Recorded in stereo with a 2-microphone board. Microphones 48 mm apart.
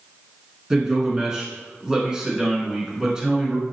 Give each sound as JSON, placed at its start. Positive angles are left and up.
{"t": 0.7, "sound": "a man speaking", "side_deg": -15, "distance_m": 1.3}